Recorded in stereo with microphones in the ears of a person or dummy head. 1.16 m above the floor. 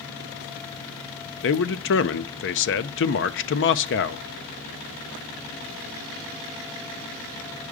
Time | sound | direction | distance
1.4 | a man speaking | 60° left (ahead or behind) | 0.6 m